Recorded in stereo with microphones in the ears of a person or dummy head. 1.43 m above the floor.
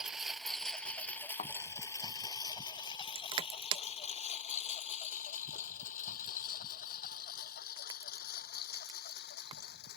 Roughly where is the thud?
Left.